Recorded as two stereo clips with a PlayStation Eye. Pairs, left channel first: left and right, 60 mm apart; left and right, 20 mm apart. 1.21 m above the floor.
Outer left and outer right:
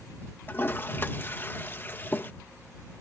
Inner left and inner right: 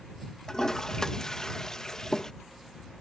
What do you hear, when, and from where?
0.5 s a toilet flushing: 35° left (ahead or behind)